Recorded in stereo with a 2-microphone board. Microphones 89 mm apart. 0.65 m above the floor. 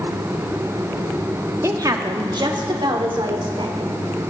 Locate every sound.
1.6 s a woman speaking: 35° right (ahead or behind), 1.0 m; by 3.9 s 70° right (ahead or behind), 2.5 m